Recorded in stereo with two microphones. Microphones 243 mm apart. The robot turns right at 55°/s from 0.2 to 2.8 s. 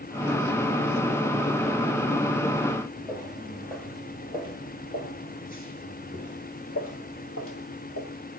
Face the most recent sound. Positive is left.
turn(degrees=60)  # may be behind; listen again after turning